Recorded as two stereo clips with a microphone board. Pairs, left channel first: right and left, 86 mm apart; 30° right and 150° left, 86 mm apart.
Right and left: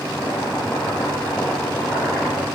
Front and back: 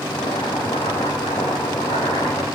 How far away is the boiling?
About 8.5 m.